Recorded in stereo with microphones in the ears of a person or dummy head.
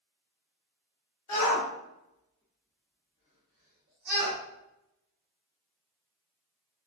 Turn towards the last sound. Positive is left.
turn(degrees=-65)  # may be behind; listen again after turning